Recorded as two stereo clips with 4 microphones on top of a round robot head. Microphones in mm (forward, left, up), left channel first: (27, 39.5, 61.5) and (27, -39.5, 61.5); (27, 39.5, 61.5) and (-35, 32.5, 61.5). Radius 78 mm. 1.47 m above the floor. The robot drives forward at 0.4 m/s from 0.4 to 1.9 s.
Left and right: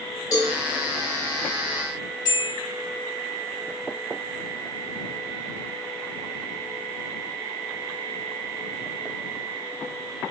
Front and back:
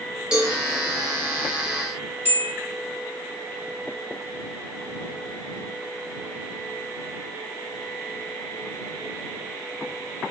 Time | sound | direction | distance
0.3 | a cowbell | 120° left | 0.8 m
2.2 | a bell | 135° left | 1.9 m